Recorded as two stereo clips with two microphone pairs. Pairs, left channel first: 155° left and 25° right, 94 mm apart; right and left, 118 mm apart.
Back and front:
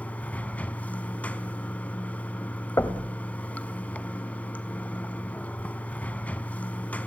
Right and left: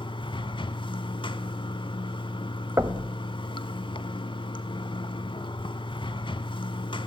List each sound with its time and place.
0.0 s running water: 130° right, 1.0 m
2.8 s knocking: 135° left, 1.4 m